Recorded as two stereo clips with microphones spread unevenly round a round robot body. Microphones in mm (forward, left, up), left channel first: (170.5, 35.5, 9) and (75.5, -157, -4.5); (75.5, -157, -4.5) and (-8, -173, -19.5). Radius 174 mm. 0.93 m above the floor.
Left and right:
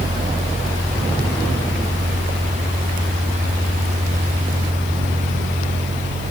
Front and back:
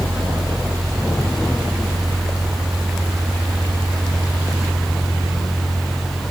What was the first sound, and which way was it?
Only background noise.